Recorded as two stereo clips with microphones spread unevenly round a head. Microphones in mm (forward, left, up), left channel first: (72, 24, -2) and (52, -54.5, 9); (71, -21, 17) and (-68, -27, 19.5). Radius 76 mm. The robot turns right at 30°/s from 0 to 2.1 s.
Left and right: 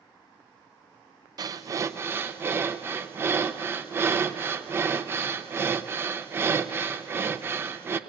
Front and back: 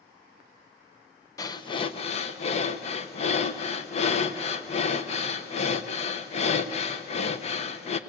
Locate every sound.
1.4 s breathing: 65° right, 0.9 m; by 8.0 s 40° right, 0.9 m